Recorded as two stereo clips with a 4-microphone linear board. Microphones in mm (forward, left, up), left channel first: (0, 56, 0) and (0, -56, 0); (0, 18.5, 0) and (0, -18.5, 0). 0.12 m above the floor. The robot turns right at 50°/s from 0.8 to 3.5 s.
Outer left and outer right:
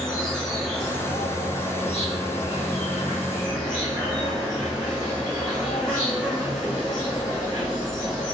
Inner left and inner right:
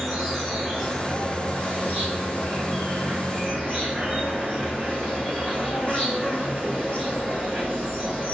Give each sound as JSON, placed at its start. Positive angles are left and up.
{"t": 0.0, "sound": "an insect", "azimuth_deg": 5, "distance_m": 3.0}